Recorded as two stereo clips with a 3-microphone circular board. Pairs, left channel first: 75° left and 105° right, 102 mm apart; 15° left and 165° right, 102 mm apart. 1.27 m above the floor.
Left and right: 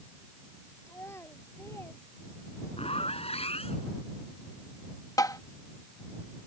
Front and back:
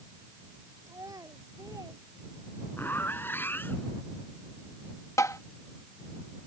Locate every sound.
0.9 s a child speaking: 140° left
2.8 s a zipper: 85° left
5.2 s tapping: 50° left